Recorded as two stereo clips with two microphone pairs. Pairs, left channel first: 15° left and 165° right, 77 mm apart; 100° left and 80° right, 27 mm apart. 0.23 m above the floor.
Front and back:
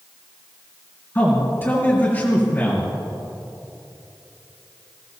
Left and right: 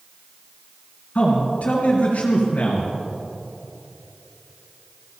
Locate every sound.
1.1 s a man speaking: 70° left, 3 m